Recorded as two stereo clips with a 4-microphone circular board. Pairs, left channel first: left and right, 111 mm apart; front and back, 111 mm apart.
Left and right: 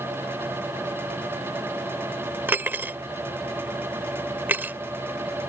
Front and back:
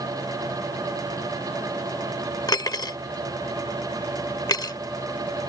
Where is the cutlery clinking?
30° right.